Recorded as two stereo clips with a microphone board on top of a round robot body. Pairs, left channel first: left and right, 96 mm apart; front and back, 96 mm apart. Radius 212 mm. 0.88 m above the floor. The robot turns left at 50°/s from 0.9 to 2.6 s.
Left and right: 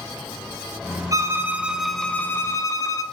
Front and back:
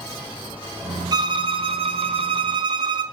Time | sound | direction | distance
1.1 | a violin | 140° right | 0.9 m